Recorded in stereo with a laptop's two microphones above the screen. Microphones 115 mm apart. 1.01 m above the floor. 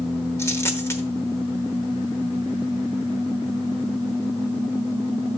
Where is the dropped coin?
20° left (ahead or behind), 0.9 m.